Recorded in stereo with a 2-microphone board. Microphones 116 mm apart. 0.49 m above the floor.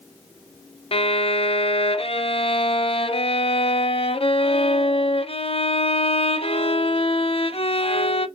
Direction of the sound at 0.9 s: 55° left (ahead or behind).